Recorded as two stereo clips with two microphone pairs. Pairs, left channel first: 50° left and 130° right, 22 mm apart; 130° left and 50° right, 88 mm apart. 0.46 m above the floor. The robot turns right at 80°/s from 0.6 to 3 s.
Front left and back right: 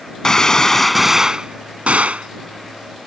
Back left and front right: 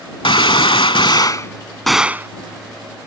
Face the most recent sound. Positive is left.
turn(degrees=-55)